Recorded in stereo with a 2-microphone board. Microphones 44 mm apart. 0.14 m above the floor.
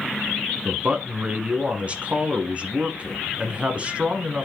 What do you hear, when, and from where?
0.7 s a man speaking: 30° right (ahead or behind), 1.3 m